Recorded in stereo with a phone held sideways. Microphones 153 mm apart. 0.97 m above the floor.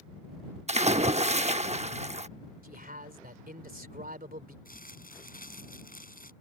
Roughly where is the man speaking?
Right.